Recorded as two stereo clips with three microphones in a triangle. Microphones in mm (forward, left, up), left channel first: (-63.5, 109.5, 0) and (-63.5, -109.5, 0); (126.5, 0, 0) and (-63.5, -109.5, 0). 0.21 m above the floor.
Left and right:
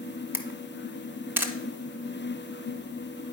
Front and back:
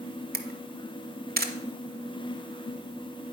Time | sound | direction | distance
0.3 | a camera shutter | 165° right | 0.8 m